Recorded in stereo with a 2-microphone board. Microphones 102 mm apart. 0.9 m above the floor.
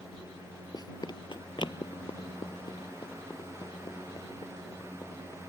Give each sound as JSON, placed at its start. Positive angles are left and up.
{"t": 0.7, "sound": "running footsteps", "side_deg": 40}